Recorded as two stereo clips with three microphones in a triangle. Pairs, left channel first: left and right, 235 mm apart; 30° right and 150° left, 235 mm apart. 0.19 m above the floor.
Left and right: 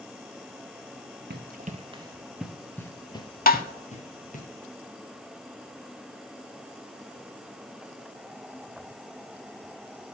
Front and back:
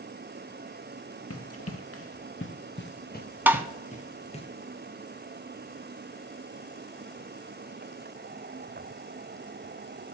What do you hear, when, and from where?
1.3 s running footsteps: 45° right, 1.1 m; by 4.5 s 35° left, 2 m
3.5 s tapping: 75° left, 0.6 m